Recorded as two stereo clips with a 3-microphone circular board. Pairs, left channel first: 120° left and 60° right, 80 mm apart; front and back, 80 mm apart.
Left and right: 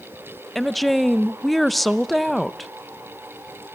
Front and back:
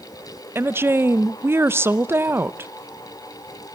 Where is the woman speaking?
155° right, 0.6 m.